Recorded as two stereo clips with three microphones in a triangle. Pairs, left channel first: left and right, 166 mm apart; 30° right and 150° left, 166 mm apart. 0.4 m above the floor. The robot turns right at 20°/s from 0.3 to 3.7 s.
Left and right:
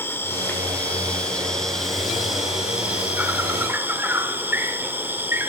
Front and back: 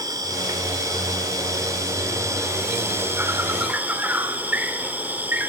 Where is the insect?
145° left, 1.4 m; by 5.5 s 150° right, 1.4 m.